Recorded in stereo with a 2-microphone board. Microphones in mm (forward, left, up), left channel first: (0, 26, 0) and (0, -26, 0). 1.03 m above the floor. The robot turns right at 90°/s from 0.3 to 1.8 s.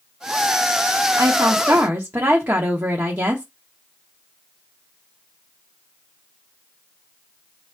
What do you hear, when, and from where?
1.2 s a woman speaking: 105° right, 1.2 m; by 3.5 s 45° right, 1.2 m